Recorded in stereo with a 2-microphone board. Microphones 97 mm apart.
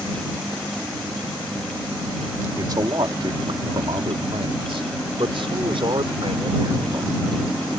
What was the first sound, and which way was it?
A man speaking, 45° right (ahead or behind).